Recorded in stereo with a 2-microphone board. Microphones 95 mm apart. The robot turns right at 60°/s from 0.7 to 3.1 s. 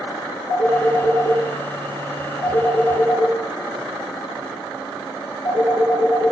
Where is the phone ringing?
30° left (ahead or behind), 5.5 m; by 6.3 s 10° left (ahead or behind), 5.5 m.